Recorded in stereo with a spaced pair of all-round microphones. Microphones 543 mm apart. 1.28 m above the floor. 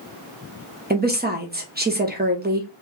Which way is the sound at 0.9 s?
20° right (ahead or behind).